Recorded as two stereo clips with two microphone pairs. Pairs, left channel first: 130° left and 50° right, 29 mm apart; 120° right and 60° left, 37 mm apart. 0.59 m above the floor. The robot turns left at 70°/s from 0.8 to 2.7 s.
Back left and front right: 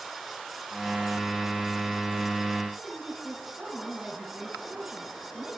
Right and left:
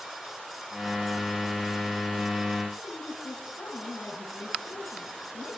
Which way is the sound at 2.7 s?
105° right.